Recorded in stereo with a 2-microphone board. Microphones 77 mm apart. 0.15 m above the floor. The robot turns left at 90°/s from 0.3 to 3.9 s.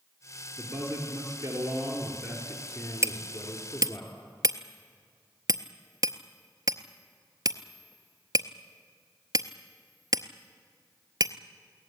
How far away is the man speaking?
About 3 m.